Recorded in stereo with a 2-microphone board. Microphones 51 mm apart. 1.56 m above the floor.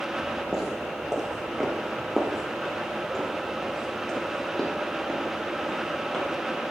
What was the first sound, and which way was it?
Footsteps, 5° right (ahead or behind).